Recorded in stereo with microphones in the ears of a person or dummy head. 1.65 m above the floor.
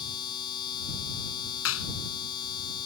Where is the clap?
75° left (ahead or behind).